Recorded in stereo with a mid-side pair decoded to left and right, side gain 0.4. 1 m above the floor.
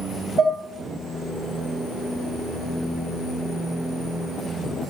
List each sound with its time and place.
0.4 s dishes clattering: 60° right, 2 m